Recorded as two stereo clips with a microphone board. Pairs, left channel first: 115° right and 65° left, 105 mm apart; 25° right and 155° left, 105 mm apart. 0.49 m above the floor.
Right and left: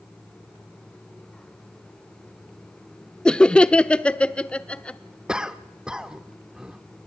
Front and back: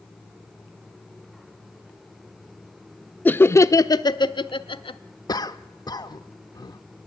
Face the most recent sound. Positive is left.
turn(degrees=-10)